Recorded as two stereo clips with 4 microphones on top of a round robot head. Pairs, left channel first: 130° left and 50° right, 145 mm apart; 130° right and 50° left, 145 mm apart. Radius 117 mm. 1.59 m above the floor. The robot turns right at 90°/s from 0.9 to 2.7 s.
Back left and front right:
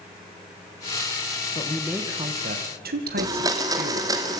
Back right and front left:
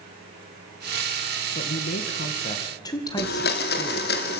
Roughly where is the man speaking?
Behind.